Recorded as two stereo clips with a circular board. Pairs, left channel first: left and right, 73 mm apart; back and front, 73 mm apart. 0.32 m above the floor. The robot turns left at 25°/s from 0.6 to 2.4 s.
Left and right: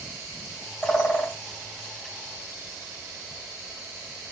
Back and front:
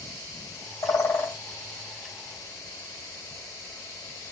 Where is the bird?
165° left, 2.5 m; by 1.4 s 155° left, 2.5 m.